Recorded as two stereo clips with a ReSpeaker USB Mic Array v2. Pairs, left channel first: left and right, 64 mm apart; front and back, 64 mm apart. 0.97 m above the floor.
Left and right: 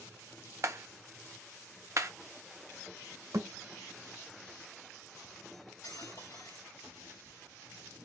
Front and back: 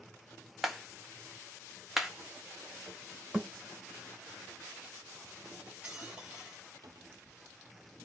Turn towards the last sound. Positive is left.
turn(degrees=-170)